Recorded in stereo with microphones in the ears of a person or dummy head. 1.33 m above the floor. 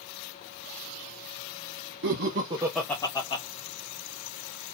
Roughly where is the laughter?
Right.